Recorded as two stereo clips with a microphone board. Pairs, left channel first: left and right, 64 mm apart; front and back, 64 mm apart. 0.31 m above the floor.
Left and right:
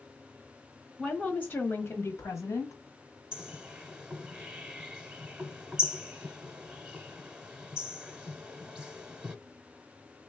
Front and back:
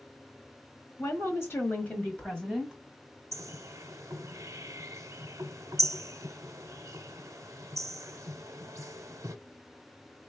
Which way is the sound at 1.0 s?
20° left.